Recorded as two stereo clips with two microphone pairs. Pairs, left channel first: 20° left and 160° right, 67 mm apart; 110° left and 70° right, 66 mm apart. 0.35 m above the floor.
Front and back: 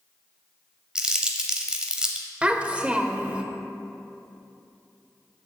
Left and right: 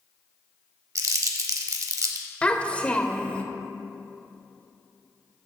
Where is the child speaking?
145° left, 0.6 m.